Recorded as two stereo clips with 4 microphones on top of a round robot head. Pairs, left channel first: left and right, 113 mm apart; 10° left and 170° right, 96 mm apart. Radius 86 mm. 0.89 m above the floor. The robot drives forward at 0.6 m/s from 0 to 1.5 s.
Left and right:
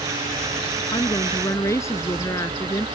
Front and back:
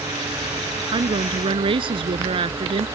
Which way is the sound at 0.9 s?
160° left.